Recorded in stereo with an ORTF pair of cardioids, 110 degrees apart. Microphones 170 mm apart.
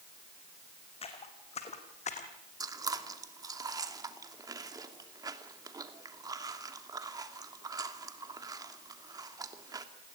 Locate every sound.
1.0 s footsteps: 35° left, 4.5 m; by 2.3 s 45° left, 4 m
2.6 s chewing: 20° right, 2.5 m